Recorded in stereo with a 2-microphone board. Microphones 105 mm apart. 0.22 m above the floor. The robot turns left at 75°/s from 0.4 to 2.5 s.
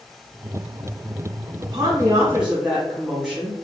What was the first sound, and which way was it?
A woman speaking, 105° right.